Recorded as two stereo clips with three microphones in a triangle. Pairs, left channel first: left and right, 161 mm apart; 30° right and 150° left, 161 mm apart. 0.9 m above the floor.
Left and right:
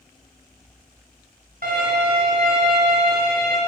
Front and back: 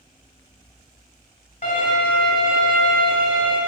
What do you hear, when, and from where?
1.6 s a violin: 60° right, 2.5 m